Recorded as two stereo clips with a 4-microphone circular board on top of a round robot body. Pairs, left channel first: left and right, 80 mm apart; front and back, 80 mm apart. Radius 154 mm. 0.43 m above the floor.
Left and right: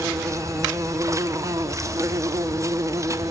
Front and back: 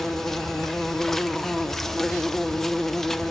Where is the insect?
80° right, 1.0 m.